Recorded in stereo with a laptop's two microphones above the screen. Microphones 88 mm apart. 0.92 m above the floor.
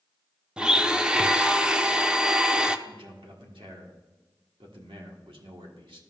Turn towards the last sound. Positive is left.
turn(degrees=-85)